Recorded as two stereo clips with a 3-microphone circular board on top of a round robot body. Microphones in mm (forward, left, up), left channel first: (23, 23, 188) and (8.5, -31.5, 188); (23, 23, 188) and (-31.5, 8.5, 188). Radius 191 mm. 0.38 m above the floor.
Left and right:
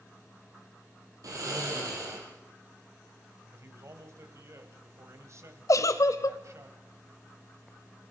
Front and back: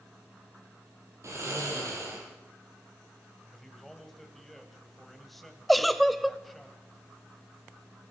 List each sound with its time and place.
1.2 s snoring: 125° right, 4 m
3.5 s a man speaking: 70° right, 3 m
5.7 s a giggle: 105° left, 0.7 m